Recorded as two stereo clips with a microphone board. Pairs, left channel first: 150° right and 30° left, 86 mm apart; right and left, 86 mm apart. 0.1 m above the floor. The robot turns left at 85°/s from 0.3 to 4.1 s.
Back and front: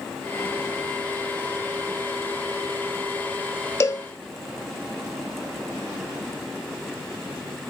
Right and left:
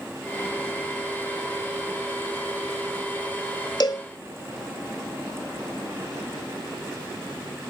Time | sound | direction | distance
3.8 | a cowbell | 105° right | 0.6 m